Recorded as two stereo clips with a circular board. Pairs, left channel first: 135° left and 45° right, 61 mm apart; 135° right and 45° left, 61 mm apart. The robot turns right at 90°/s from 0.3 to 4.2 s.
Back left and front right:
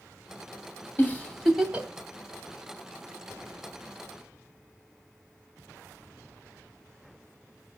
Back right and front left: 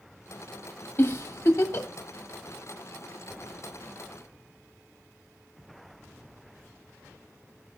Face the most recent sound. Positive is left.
turn(degrees=110)